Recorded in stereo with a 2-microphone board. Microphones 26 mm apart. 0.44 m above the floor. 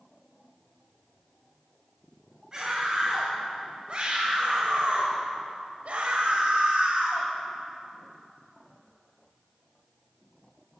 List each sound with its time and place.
2.5 s a scream: 30° right (ahead or behind), 2.5 m; by 7.3 s 50° right (ahead or behind), 2.5 m